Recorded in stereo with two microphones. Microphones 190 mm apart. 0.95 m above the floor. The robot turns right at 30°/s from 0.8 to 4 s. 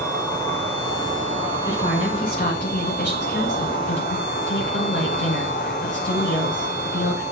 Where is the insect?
10° left, 5 m; by 7.3 s 110° left, 5 m.